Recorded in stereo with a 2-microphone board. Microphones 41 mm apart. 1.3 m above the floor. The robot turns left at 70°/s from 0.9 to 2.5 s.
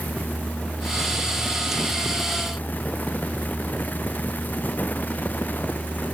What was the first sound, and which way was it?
Only background noise.